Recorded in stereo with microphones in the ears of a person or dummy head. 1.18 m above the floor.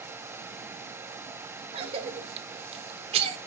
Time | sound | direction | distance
1.7 | a cough | 30° right (ahead or behind) | 1.2 m